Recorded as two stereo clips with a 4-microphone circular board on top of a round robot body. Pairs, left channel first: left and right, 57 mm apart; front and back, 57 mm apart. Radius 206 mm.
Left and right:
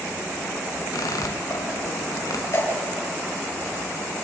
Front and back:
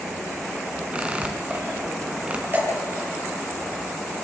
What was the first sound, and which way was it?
A squeak, 110° left.